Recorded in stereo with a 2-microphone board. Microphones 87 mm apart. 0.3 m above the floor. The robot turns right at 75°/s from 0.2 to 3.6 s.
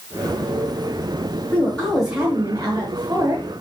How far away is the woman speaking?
About 2 m.